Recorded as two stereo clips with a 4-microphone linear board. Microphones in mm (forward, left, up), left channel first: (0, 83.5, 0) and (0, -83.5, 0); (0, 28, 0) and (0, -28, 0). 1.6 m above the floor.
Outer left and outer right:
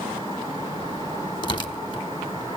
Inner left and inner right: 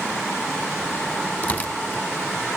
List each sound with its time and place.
1.4 s tearing paper: 30° left (ahead or behind), 1.5 m